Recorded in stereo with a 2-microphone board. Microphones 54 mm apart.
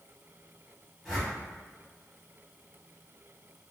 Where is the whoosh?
10° right (ahead or behind), 1.6 m.